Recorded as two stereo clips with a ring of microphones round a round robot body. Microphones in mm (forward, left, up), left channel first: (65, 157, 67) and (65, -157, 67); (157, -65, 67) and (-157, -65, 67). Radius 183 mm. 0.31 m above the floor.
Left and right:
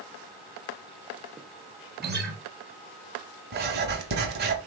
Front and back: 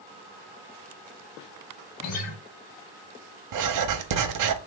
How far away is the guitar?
About 1.0 m.